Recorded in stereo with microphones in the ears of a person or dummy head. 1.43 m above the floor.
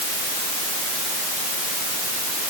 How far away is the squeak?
No squeak in this recording.